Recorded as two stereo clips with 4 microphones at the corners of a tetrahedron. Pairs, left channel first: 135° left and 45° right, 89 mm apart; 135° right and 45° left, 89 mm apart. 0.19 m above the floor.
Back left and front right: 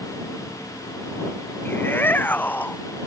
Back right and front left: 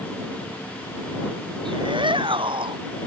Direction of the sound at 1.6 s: 70° left.